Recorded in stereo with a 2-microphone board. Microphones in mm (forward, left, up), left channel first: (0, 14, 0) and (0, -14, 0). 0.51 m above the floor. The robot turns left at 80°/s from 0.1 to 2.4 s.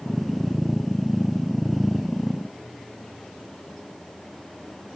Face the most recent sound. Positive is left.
No sound to turn to.